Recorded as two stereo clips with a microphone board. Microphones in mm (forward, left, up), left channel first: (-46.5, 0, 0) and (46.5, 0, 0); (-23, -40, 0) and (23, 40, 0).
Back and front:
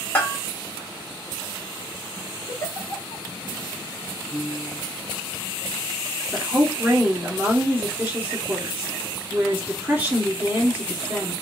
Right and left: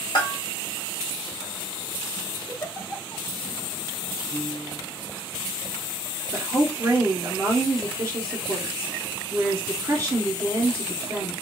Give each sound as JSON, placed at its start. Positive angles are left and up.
{"t": 0.1, "sound": "a bell", "azimuth_deg": -115, "distance_m": 1.0}
{"t": 2.5, "sound": "a giggle", "azimuth_deg": -160, "distance_m": 1.0}
{"t": 4.3, "sound": "a piano", "azimuth_deg": 105, "distance_m": 2.0}
{"t": 6.3, "sound": "a woman speaking", "azimuth_deg": 50, "distance_m": 1.5}